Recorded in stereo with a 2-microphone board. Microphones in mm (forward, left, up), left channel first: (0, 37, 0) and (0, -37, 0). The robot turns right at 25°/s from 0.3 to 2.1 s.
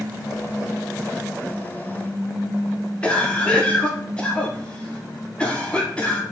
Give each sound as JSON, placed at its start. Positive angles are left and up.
{"t": 3.0, "sound": "a cough", "side_deg": 15, "distance_m": 1.1}